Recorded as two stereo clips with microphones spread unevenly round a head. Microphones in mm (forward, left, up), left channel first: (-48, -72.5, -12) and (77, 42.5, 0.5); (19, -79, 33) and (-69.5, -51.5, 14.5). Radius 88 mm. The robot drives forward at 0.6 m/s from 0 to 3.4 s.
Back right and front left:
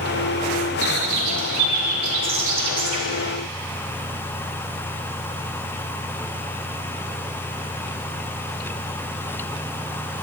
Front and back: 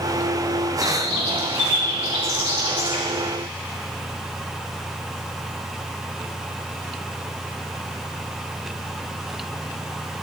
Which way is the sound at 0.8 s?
5° left.